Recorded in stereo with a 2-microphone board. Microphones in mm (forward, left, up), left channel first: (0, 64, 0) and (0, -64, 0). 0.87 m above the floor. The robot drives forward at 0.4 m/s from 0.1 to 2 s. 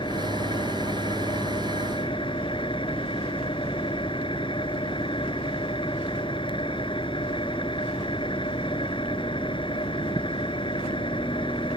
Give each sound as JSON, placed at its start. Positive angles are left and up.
{"t": 0.0, "sound": "an engine running", "side_deg": 40}